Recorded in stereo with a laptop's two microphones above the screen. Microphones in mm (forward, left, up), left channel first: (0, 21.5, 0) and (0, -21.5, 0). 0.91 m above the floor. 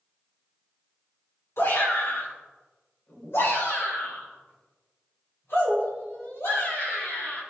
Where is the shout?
70° left (ahead or behind), 3.5 m.